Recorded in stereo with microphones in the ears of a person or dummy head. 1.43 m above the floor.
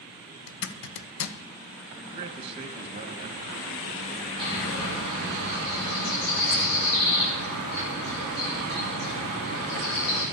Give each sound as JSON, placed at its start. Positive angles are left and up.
{"t": 0.5, "sound": "a zipper", "side_deg": 70, "distance_m": 1.0}
{"t": 2.0, "sound": "a man speaking", "side_deg": -35, "distance_m": 1.9}
{"t": 4.4, "sound": "a bird", "side_deg": 80, "distance_m": 9.5}